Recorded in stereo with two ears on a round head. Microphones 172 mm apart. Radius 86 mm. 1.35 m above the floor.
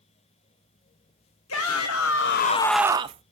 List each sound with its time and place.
1.5 s a shout: 85° left, 1.5 m; by 3.2 s 35° right (ahead or behind), 1.0 m